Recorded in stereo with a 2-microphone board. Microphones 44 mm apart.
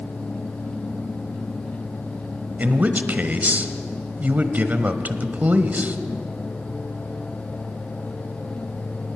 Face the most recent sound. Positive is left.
turn(degrees=-40)  # may be behind; listen again after turning